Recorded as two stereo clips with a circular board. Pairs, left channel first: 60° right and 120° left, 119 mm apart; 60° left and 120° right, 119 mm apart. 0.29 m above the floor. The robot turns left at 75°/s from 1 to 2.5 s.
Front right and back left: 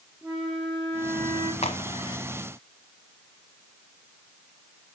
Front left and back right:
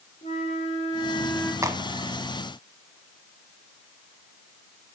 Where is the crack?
60° right, 1.2 m; by 2.2 s 100° right, 1.2 m.